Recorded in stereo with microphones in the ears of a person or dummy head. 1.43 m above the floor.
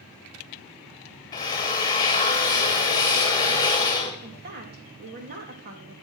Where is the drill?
25° left (ahead or behind), 1.9 m.